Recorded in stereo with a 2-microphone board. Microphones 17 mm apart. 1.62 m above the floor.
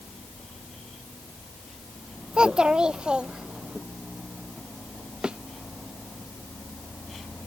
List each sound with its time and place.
2.3 s a child speaking: 60° right (ahead or behind); by 3.8 s 70° right (ahead or behind)
5.2 s a thud: 70° right (ahead or behind)